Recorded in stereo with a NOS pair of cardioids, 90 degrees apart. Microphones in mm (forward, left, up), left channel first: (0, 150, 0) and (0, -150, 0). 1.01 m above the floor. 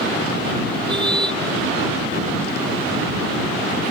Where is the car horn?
15° right.